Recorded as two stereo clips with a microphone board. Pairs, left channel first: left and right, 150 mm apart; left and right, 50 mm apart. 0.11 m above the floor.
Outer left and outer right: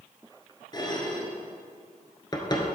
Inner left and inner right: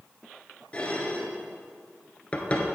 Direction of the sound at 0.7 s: 30° left (ahead or behind).